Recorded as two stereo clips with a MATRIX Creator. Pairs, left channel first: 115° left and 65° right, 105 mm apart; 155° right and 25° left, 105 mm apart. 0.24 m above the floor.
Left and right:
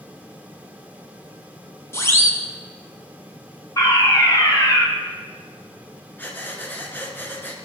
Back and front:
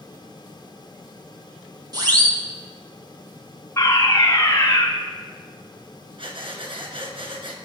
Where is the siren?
55° left, 2 m.